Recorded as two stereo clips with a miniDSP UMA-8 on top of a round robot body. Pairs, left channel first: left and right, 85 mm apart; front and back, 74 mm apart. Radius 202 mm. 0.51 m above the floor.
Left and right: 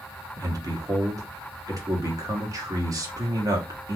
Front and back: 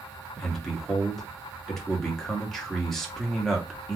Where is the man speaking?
80° right, 1.5 m.